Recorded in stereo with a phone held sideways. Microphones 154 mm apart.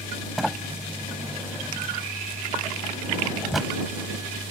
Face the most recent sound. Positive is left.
turn(degrees=0)  # may be behind; listen again after turning